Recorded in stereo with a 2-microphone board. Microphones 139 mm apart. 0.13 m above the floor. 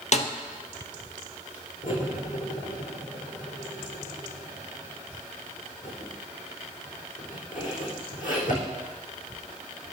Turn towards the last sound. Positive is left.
turn(degrees=70)  # may be behind; listen again after turning